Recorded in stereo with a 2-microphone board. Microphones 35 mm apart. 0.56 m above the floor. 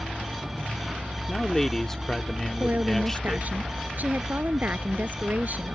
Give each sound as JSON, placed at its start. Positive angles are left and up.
{"t": 0.0, "sound": "a vehicle", "side_deg": -30}
{"t": 1.3, "sound": "a man speaking", "side_deg": 10}
{"t": 2.6, "sound": "a woman speaking", "side_deg": -55}